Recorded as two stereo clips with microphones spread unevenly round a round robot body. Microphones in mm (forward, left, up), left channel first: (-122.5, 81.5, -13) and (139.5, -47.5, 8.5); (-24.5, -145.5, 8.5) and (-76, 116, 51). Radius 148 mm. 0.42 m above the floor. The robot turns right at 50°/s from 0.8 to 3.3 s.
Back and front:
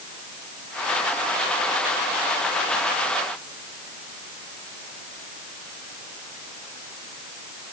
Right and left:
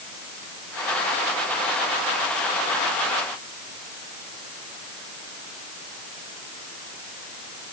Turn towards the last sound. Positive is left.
No sound to turn to.